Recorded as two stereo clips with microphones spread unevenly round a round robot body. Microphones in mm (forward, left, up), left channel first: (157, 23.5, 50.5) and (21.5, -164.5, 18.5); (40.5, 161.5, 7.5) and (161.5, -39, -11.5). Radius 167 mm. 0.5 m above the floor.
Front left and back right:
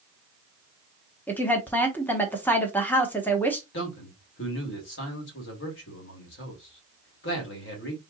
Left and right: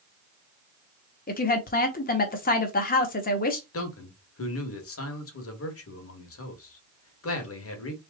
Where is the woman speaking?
145° left, 1.0 m.